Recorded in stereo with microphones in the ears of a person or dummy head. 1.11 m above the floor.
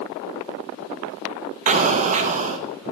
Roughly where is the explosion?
Right.